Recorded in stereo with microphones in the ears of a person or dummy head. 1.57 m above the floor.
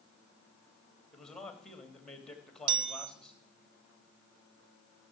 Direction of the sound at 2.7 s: 55° right (ahead or behind).